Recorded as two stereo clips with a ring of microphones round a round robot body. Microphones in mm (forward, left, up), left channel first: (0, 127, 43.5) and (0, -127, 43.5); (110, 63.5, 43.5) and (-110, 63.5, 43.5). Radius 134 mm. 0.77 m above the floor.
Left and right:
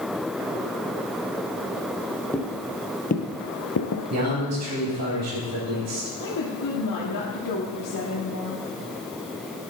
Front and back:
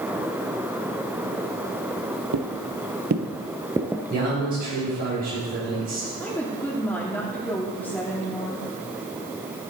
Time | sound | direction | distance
2.3 | footsteps | 175° left | 1.6 m
4.1 | a man speaking | 120° right | 5.5 m
6.2 | a woman speaking | 85° left | 1.8 m